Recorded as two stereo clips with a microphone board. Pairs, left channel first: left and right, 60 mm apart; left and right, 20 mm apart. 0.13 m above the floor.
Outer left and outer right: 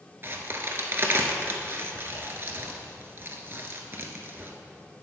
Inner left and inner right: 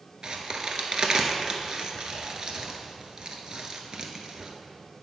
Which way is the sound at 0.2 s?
40° right (ahead or behind).